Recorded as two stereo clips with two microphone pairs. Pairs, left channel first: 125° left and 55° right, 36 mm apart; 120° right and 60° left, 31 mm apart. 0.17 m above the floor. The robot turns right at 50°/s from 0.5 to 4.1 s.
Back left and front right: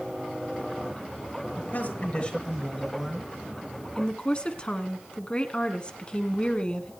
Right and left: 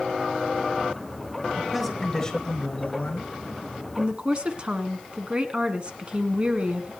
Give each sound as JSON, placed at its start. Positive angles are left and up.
{"t": 1.6, "sound": "a man speaking", "azimuth_deg": 150, "distance_m": 3.0}
{"t": 4.0, "sound": "a woman speaking", "azimuth_deg": 80, "distance_m": 1.7}